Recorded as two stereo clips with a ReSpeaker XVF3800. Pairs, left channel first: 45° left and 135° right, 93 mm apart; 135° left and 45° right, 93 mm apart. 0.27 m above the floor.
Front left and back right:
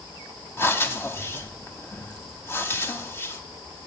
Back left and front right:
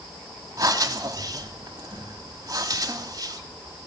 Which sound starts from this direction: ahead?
Breathing, at 0.6 s.